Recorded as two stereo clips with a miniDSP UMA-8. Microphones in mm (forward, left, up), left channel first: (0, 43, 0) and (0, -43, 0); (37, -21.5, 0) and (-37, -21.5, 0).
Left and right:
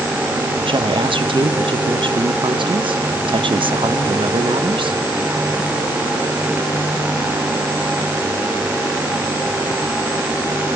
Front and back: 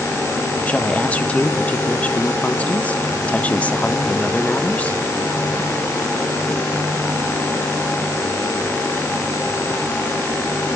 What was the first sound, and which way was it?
A woman speaking, 70° right.